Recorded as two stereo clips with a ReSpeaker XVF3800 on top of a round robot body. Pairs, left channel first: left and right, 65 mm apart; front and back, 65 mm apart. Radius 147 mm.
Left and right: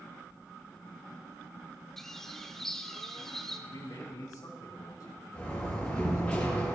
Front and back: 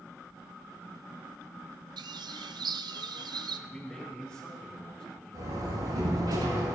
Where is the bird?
175° left, 0.6 m.